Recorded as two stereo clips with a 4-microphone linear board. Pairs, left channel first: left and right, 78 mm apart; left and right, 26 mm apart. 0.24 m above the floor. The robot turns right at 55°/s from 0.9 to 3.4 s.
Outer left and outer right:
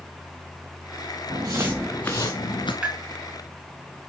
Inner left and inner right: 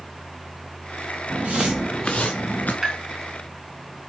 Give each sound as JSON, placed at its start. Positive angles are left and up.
{"t": 1.3, "sound": "footsteps", "side_deg": -65, "distance_m": 1.4}
{"t": 2.8, "sound": "tapping", "side_deg": -15, "distance_m": 3.0}